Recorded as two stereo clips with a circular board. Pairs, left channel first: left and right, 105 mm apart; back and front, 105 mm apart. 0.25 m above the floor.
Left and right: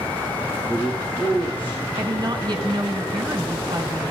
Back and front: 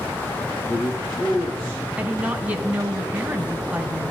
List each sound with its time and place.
0.7 s a man speaking: 160° left, 5.5 m
2.0 s a woman speaking: 70° right, 1.9 m